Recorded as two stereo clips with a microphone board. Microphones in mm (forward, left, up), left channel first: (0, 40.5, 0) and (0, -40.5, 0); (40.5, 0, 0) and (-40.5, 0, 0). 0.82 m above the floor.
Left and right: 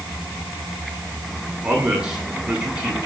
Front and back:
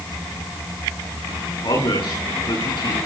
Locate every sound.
1.6 s a man speaking: 10° right, 9 m